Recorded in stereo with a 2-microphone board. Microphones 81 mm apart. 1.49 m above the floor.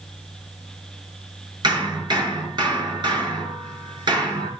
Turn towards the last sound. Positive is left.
turn(degrees=-70)  # may be behind; listen again after turning